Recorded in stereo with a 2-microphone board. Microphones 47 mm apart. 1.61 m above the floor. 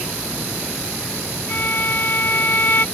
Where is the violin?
45° left (ahead or behind).